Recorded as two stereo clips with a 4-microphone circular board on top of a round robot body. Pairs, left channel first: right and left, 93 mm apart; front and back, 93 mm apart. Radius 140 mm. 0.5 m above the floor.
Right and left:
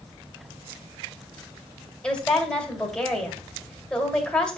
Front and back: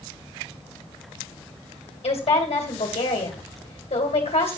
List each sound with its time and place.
2.0 s a woman speaking: 10° right, 2.5 m